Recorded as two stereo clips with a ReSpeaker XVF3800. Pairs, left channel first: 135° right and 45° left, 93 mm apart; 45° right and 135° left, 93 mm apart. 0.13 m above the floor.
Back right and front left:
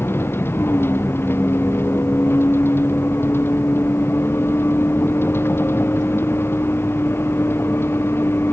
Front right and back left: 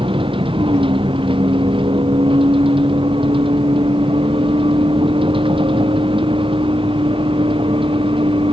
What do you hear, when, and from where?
0.0 s a vehicle: 160° left